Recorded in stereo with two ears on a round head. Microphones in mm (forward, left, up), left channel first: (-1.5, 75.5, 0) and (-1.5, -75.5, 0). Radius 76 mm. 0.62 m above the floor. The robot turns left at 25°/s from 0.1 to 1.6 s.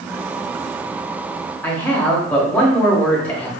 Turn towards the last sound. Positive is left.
turn(degrees=10)  # may be behind; listen again after turning